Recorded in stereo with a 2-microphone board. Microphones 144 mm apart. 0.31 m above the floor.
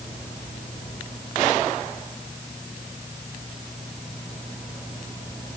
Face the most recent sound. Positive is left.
No sound to turn to.